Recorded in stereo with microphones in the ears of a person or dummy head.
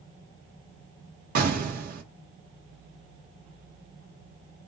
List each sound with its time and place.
1.4 s an explosion: 50° right (ahead or behind), 0.9 m